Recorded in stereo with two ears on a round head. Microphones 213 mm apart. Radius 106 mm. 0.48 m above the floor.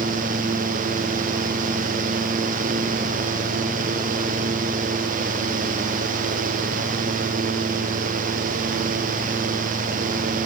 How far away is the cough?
I don't hear a cough.